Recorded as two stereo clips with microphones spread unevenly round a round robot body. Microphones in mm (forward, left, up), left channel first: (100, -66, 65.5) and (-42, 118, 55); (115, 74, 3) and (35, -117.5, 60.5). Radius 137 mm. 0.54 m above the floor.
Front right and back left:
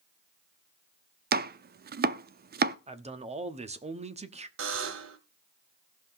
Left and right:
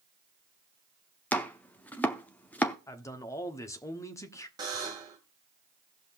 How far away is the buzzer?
About 1.3 m.